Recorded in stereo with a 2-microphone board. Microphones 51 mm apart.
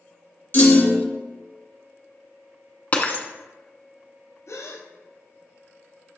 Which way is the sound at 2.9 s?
35° left (ahead or behind).